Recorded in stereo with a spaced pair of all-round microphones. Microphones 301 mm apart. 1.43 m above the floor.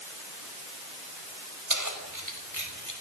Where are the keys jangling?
75° right (ahead or behind), 5.5 m.